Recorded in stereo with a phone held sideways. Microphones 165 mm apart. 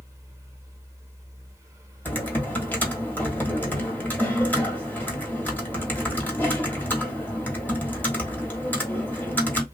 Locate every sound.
0.0 s a fan: 20° right (ahead or behind), 0.8 m
2.0 s typing on a keyboard: 10° left (ahead or behind), 0.9 m